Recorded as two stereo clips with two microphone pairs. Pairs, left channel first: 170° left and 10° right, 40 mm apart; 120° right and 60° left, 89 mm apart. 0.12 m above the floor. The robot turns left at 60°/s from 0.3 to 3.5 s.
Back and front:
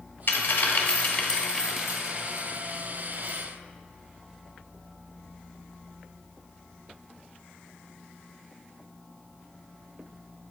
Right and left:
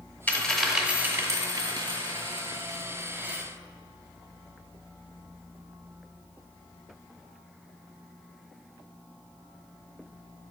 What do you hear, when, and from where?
0.3 s a dropped coin: 170° left, 1.2 m; by 3.4 s 15° right, 1.2 m